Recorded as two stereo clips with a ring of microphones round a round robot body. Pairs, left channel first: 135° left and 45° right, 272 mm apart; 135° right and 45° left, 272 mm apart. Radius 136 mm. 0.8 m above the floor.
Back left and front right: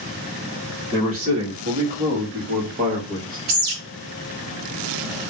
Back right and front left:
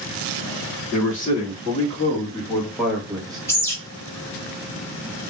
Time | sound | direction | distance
0.9 | a man speaking | 80° right | 1.9 m
3.5 | a bird | 55° right | 1.2 m